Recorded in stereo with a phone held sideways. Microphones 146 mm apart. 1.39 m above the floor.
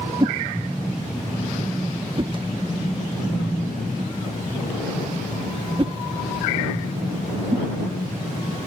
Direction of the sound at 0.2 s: 35° right (ahead or behind).